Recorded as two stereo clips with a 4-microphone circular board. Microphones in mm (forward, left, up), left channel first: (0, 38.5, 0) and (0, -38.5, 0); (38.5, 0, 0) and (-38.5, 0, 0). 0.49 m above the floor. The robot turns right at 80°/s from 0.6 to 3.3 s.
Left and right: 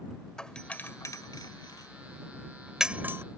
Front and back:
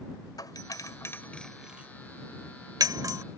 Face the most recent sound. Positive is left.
turn(degrees=-135)